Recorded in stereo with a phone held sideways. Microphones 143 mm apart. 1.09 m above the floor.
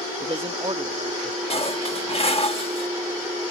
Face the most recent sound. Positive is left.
turn(degrees=40)  # may be behind; listen again after turning